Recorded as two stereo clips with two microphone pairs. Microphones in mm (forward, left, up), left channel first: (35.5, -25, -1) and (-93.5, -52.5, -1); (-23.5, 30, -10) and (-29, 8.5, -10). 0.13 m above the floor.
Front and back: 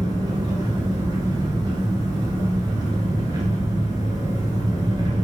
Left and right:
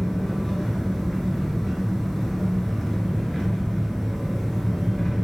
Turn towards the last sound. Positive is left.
turn(degrees=150)